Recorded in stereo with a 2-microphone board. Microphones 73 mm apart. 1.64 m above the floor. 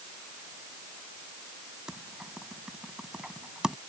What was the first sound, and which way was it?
Typing on a keyboard, 10° right (ahead or behind).